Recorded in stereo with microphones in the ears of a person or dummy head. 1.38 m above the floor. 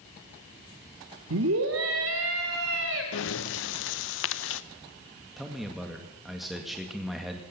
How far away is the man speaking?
About 2 m.